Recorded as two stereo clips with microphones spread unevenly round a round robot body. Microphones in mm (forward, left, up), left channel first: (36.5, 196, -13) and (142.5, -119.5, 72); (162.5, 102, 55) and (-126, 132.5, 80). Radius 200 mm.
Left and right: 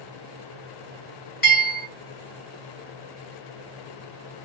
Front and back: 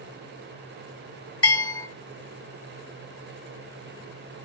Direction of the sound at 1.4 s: 60° left.